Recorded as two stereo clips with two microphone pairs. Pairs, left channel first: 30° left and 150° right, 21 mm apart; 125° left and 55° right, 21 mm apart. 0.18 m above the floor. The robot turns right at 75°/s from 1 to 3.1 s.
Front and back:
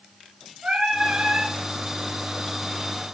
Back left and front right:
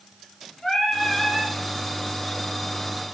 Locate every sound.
0.6 s singing: 165° right, 3 m; by 1.5 s 125° right, 3 m